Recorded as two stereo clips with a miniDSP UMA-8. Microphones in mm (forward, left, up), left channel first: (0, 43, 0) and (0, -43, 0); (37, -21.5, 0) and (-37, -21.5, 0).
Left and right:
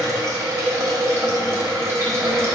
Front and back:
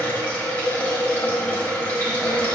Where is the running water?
55° right, 1.1 m.